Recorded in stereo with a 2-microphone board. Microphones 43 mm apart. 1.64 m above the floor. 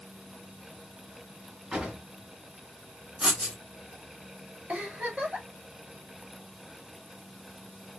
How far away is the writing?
About 1.9 m.